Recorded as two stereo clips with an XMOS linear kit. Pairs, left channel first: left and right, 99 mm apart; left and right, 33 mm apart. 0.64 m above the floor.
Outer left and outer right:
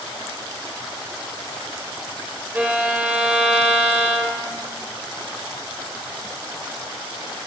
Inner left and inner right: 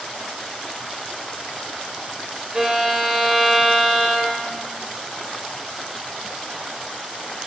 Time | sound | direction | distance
2.5 | a violin | 15° right (ahead or behind) | 0.7 m